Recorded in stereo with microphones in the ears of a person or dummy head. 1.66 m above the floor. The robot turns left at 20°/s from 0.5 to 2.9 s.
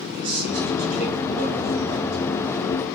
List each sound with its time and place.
0.1 s a man speaking: 110° right, 2 m; by 2.2 s 145° right, 2 m